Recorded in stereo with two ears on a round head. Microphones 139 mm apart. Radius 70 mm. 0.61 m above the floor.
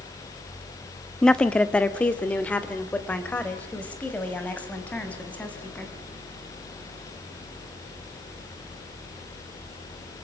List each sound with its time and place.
1.2 s a woman speaking: 5° left (ahead or behind), 0.8 m; by 5.9 s 10° left (ahead or behind), 5 m